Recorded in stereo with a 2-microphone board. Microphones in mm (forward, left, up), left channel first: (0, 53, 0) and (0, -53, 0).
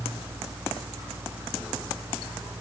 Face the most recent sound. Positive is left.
No sound to turn to.